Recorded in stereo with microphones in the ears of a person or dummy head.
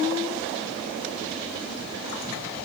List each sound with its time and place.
Only background noise.